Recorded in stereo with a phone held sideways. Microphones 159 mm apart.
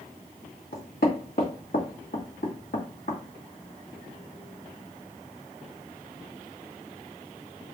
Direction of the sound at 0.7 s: 85° left.